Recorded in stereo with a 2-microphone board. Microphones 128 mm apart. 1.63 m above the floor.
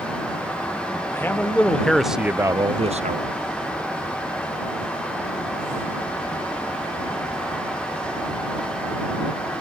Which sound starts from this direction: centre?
A man speaking, at 1.1 s.